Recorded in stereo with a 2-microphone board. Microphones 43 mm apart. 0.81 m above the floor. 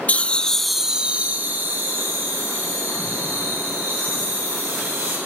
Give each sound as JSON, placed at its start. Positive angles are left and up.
{"t": 0.1, "sound": "laughter", "side_deg": 35, "distance_m": 0.7}